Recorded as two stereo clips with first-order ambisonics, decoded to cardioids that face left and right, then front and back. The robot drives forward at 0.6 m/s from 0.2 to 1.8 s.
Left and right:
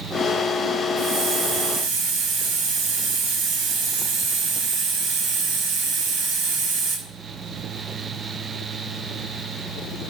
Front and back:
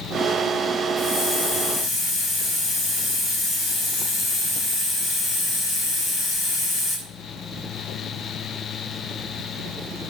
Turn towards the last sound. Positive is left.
turn(degrees=-65)